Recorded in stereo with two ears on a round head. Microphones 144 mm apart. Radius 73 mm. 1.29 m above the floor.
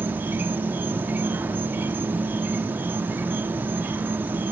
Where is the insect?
10° right (ahead or behind), 0.8 m.